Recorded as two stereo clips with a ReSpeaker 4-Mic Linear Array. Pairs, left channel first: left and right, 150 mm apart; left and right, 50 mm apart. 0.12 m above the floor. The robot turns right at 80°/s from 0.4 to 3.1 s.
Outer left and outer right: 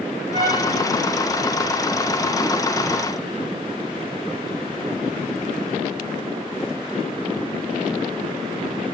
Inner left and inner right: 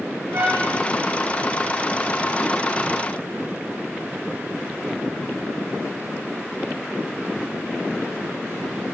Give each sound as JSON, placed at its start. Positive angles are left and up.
{"t": 0.3, "sound": "a trumpet", "side_deg": -55, "distance_m": 4.0}